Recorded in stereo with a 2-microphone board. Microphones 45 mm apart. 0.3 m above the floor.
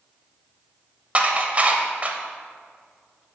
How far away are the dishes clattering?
About 0.7 m.